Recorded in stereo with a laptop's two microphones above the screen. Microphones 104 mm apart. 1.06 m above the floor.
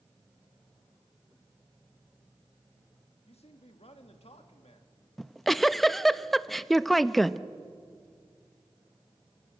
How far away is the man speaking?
About 1.7 m.